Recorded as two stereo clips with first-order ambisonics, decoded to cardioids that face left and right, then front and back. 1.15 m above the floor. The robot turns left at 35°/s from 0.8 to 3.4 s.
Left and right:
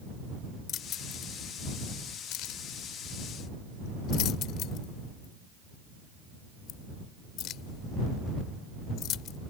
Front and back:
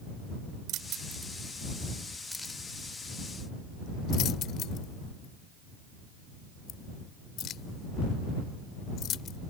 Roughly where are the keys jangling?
Behind left.